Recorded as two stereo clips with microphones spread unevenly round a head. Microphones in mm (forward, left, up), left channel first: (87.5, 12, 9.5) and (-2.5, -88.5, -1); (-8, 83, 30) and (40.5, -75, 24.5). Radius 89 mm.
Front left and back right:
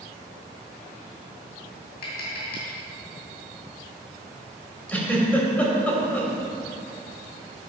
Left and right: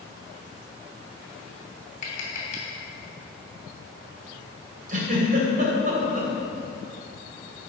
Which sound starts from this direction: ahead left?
Tapping, at 2.0 s.